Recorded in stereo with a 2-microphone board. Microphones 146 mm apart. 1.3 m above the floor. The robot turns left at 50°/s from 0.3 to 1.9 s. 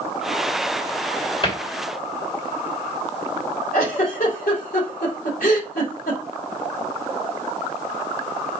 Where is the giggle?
75° left (ahead or behind), 2.5 m.